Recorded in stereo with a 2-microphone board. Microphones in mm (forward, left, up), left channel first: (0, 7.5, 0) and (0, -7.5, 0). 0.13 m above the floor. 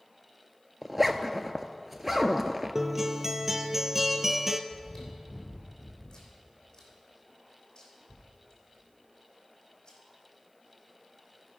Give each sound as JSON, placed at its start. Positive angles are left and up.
{"t": 0.8, "sound": "a zipper", "side_deg": -15, "distance_m": 0.6}
{"t": 2.8, "sound": "a guitar", "side_deg": -15, "distance_m": 0.6}
{"t": 4.7, "sound": "chewing", "side_deg": 40, "distance_m": 2.5}